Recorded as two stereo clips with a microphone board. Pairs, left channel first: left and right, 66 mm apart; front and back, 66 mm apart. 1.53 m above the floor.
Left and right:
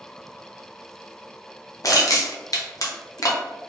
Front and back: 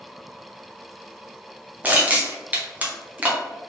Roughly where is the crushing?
Behind left.